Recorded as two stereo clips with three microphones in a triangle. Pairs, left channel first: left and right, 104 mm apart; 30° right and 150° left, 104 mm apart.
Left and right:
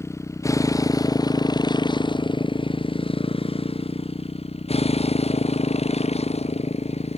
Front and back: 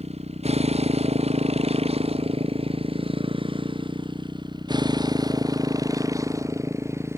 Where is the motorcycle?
155° left; by 7.2 s 85° left.